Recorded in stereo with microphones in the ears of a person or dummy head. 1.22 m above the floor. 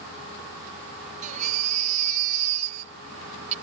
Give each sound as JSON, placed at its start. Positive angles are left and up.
{"t": 1.2, "sound": "a baby crying", "side_deg": -45}